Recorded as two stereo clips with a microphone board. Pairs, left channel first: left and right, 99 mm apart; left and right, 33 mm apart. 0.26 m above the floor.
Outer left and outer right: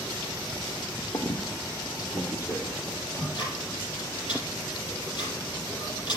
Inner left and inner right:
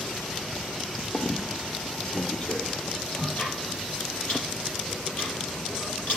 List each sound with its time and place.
1.1 s a squeak: 40° left (ahead or behind), 1.2 m
3.1 s ticking: 55° left (ahead or behind), 5.5 m